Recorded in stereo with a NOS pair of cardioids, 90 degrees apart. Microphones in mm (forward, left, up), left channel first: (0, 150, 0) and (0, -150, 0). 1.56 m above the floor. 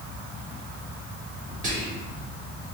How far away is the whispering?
About 1.4 m.